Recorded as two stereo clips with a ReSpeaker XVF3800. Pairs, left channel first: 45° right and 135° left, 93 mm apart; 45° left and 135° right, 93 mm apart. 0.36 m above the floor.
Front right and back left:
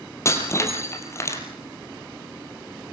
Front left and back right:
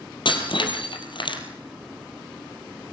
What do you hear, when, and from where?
0.2 s breaking glass: 15° left, 3 m